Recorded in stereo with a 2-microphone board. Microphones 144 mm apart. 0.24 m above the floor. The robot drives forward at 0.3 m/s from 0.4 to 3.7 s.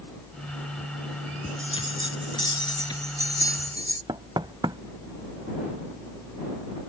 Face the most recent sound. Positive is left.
turn(degrees=-30)  # may be behind; listen again after turning